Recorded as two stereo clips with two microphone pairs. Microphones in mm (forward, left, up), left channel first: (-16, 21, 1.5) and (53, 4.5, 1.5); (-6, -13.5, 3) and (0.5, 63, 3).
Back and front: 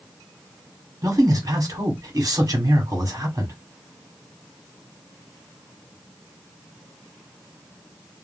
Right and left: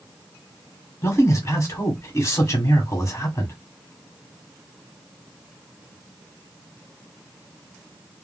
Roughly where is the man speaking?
Ahead right.